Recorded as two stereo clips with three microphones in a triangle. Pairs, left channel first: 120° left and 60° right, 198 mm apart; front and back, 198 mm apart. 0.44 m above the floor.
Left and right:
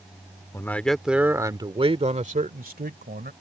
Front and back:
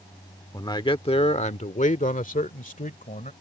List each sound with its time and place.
0.5 s a man speaking: 55° left; by 3.3 s 40° right